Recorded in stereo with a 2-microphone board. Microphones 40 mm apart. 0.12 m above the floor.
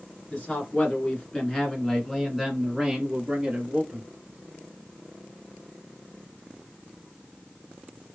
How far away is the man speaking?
About 1.7 m.